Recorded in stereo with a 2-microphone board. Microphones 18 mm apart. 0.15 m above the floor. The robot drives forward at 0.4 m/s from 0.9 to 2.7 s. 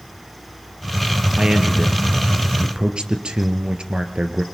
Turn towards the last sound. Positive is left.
turn(degrees=-65)  # may be behind; listen again after turning